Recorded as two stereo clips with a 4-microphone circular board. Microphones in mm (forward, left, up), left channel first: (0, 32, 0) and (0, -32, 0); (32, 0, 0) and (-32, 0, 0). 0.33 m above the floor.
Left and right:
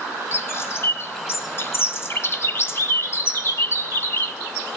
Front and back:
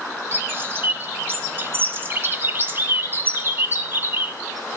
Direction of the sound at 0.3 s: 130° left.